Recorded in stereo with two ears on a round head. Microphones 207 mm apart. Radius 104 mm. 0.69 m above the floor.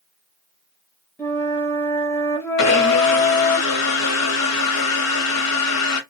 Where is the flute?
10° left (ahead or behind), 0.8 m.